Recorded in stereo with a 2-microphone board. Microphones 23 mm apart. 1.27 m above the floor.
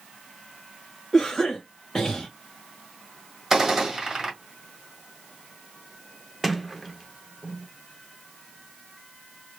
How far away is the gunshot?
About 1.8 m.